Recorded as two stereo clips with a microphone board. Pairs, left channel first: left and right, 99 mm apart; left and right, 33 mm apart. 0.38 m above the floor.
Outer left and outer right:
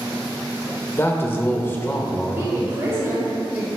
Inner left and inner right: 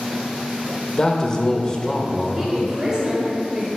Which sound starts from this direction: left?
A man speaking, at 1.0 s.